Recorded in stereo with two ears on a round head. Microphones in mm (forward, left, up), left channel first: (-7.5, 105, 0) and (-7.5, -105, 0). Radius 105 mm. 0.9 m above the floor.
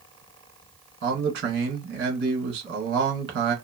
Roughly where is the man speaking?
Right.